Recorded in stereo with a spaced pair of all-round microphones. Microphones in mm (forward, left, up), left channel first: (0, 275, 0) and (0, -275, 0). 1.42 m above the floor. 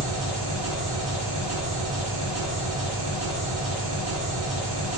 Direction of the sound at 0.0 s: 35° right (ahead or behind).